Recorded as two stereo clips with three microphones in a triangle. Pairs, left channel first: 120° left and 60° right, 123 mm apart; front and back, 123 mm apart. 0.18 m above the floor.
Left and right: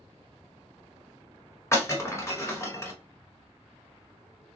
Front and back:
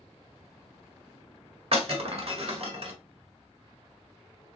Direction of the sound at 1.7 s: Straight behind.